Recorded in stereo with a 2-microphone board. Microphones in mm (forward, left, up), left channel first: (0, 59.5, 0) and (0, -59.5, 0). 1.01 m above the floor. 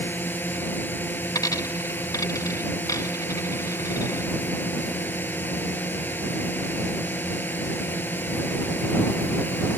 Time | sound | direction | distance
0.0 | a drone | 15° left (ahead or behind) | ?
1.4 | a dropped coin | 30° left (ahead or behind) | ?